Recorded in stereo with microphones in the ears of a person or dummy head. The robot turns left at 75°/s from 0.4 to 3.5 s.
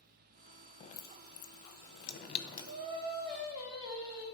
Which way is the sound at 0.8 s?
30° left (ahead or behind).